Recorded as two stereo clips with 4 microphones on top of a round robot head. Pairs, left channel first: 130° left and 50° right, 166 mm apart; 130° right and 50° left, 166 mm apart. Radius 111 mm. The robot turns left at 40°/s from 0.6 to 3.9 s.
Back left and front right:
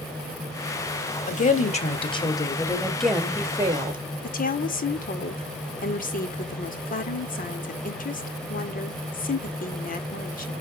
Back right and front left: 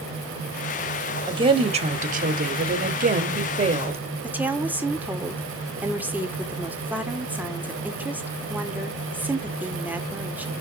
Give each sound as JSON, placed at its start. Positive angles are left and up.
{"t": 1.3, "sound": "a woman speaking", "azimuth_deg": 110, "distance_m": 1.9}
{"t": 4.2, "sound": "a woman speaking", "azimuth_deg": 130, "distance_m": 2.0}